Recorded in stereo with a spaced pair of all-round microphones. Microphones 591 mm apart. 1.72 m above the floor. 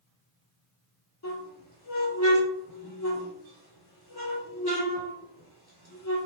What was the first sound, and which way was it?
A squeak, 40° left (ahead or behind).